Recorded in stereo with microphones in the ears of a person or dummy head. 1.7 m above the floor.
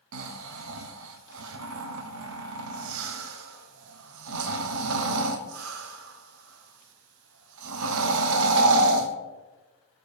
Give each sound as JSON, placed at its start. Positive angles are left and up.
{"t": 0.1, "sound": "snoring", "side_deg": -75, "distance_m": 0.8}